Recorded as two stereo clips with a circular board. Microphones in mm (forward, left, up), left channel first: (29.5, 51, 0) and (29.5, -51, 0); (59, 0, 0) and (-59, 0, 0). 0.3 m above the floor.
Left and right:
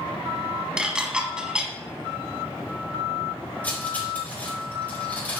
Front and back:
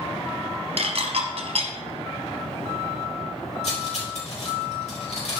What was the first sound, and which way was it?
Dishes clattering, 170° right.